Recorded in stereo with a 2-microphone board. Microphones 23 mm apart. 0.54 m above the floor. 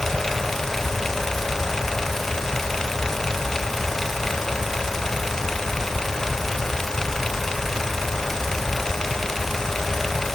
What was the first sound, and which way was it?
Only background noise.